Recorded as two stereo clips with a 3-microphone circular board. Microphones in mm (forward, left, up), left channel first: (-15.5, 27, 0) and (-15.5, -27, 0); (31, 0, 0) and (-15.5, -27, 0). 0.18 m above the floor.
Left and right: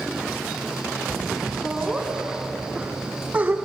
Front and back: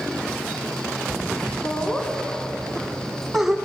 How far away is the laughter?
About 1.9 m.